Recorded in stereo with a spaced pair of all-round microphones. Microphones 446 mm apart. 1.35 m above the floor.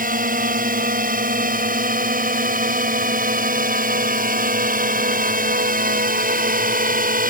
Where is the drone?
20° right (ahead or behind).